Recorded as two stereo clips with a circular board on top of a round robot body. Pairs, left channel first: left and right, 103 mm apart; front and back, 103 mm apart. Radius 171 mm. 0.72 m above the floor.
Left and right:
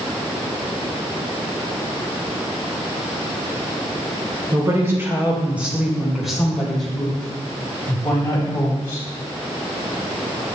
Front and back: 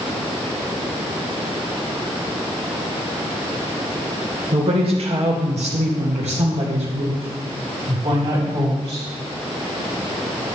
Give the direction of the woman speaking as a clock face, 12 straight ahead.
5 o'clock.